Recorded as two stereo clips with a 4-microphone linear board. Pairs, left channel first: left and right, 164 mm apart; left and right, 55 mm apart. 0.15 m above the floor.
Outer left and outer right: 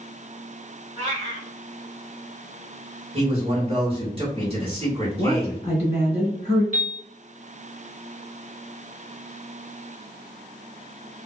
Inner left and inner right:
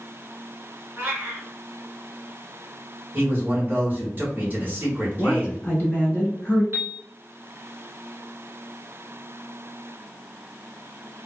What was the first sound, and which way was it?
A cat meowing, 40° right (ahead or behind).